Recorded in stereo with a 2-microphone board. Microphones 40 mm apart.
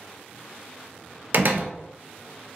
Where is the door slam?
50° right (ahead or behind), 0.5 m.